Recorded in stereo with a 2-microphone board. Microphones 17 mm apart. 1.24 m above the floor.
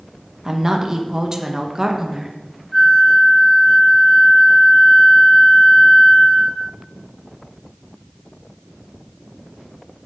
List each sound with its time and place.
0.5 s a woman speaking: 30° right (ahead or behind), 0.9 m
2.7 s a flute: 5° left (ahead or behind), 1.3 m